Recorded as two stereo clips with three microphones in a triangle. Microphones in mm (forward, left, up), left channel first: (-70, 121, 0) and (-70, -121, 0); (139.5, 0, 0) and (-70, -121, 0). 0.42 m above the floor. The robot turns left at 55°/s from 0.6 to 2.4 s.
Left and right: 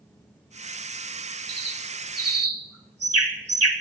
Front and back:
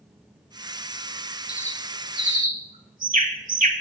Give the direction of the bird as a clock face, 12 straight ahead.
1 o'clock.